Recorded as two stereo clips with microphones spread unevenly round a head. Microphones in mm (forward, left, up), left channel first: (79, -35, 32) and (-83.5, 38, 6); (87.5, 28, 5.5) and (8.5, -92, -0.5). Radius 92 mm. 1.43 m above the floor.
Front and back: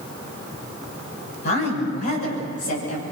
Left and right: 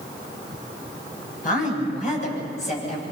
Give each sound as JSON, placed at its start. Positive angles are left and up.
{"t": 1.4, "sound": "a woman speaking", "azimuth_deg": 30, "distance_m": 9.5}